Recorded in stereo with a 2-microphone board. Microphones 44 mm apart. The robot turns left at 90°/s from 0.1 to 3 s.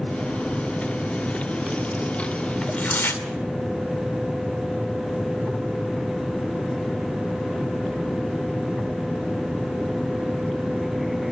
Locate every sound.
2.6 s tearing paper: 170° left, 2.5 m; by 3.2 s 135° left, 2.5 m